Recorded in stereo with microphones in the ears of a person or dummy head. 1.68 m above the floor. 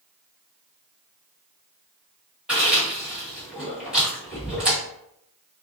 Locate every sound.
2.5 s chewing: 5° right (ahead or behind), 2.0 m